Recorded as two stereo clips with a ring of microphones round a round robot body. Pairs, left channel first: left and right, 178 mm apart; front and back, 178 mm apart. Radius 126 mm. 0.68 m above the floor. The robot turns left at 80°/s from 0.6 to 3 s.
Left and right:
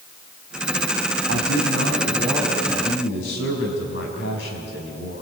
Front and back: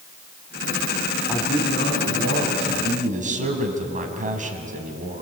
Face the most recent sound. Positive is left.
turn(degrees=135)